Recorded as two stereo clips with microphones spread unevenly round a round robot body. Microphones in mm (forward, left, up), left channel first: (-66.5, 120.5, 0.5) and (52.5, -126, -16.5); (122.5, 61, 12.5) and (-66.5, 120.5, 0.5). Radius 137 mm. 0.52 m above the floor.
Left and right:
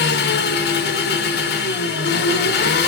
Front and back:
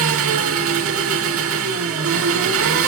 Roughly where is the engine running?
Behind.